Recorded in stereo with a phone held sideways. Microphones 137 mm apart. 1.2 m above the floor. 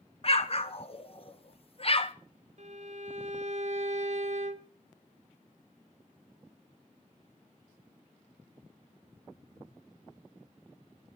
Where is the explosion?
45° left (ahead or behind), 0.7 m.